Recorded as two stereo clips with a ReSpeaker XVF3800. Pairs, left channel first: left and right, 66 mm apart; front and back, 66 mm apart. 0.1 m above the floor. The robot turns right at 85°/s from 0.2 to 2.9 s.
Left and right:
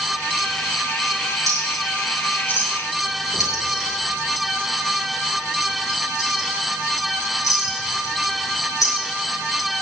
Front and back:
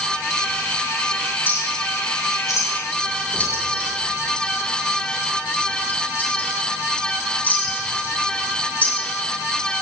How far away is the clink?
About 3.5 m.